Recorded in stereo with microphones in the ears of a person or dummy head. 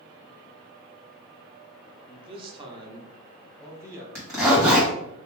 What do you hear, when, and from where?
2.1 s a man speaking: 30° right (ahead or behind), 0.6 m; by 4.0 s 15° right (ahead or behind), 1.6 m
4.2 s a zipper: 15° right (ahead or behind), 1.3 m